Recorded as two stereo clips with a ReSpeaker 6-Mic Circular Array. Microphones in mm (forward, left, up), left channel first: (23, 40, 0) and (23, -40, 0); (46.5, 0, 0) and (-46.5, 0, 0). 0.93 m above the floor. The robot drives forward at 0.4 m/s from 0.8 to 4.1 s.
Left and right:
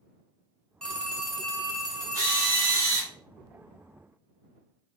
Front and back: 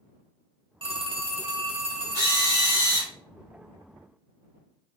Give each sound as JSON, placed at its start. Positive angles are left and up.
{"t": 0.8, "sound": "a phone ringing", "azimuth_deg": 170, "distance_m": 0.6}
{"t": 2.1, "sound": "a drill", "azimuth_deg": -135, "distance_m": 1.5}